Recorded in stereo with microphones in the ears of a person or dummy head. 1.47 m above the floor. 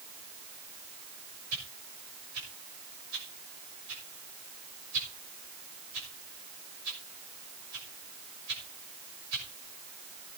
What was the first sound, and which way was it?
A whoosh, 80° right.